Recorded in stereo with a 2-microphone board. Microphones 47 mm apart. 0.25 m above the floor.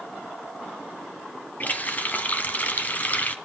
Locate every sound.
1.6 s a running tap: 35° left (ahead or behind), 1.4 m